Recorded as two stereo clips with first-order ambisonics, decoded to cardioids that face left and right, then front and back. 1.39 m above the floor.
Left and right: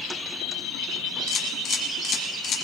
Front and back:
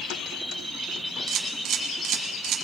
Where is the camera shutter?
140° left, 1.9 m.